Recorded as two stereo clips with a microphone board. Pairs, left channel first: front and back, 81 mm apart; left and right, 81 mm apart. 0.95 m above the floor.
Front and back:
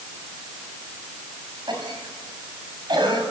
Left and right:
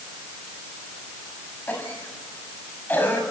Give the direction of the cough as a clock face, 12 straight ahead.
7 o'clock.